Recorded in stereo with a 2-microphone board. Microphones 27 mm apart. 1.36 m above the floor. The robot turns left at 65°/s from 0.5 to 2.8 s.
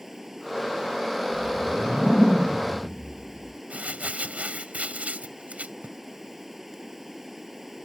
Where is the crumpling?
60° right (ahead or behind).